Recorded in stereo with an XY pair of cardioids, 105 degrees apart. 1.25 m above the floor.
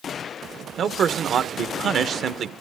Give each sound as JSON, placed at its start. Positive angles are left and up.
{"t": 0.8, "sound": "a man speaking", "azimuth_deg": -55, "distance_m": 1.0}